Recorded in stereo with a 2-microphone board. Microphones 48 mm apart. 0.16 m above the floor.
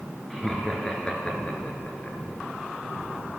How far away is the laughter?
About 2.5 m.